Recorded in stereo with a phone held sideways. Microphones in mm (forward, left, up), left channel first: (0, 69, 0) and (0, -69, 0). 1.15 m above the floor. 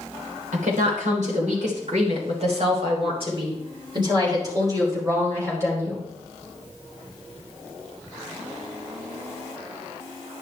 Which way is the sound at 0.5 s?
75° right (ahead or behind).